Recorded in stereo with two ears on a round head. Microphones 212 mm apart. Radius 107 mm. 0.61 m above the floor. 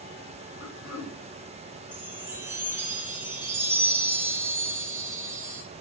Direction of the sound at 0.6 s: 60° left (ahead or behind).